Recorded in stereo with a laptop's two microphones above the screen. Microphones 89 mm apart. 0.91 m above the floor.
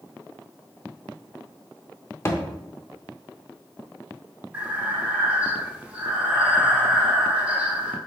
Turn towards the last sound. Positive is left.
turn(degrees=-15)  # may be behind; listen again after turning